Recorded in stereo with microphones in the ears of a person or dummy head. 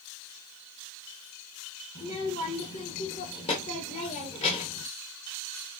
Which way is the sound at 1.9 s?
35° left (ahead or behind).